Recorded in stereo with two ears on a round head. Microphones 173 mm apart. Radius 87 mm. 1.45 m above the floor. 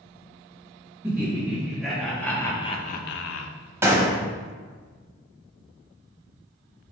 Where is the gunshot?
15° right (ahead or behind), 0.8 m.